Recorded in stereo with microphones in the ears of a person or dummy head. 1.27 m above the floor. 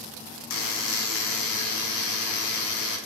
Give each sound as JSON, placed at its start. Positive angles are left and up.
{"t": 0.5, "sound": "a buzzer", "side_deg": 70, "distance_m": 0.6}